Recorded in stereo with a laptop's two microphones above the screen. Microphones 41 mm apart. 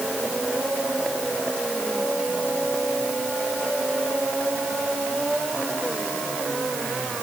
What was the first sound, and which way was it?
Only background noise.